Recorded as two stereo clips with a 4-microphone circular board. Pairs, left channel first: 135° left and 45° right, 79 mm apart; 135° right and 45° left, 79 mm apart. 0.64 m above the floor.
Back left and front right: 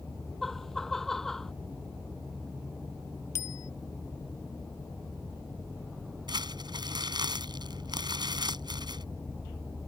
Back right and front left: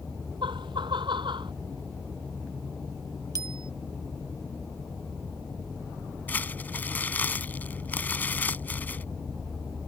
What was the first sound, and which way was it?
Laughter, 50° left.